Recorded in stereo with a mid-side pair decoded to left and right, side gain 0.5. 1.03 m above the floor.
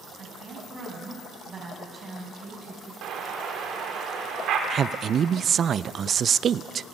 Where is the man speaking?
50° right, 0.5 m.